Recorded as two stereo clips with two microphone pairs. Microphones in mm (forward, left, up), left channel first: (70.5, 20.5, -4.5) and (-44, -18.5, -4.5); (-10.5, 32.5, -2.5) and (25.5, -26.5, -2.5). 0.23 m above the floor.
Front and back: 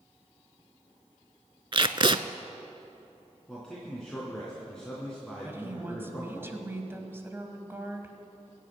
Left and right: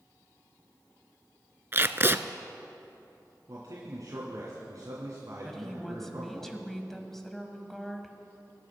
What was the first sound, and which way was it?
Tape being pulled, 115° right.